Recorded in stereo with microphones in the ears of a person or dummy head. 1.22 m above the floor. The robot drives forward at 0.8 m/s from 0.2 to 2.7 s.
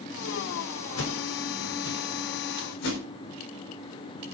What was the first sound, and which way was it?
A whoosh, 80° left.